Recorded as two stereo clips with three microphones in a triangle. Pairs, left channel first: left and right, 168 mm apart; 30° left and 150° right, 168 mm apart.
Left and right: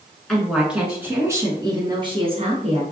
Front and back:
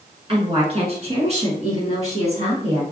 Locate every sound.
0.3 s a woman speaking: 175° left, 1.7 m; by 2.8 s 120° right, 2.0 m